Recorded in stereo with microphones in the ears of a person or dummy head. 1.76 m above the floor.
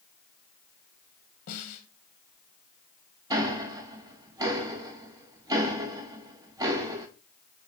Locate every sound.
1.5 s a snare drum: 40° left (ahead or behind), 1.3 m
3.3 s ticking: 20° right (ahead or behind), 1.4 m